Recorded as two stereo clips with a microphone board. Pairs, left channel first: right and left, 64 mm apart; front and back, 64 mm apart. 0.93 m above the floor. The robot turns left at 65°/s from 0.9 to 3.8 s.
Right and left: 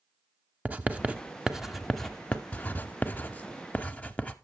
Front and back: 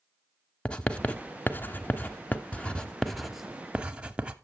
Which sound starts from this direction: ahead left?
Writing, at 0.7 s.